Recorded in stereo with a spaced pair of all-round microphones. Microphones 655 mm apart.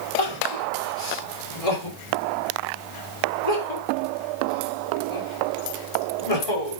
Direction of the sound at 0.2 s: 70° left (ahead or behind).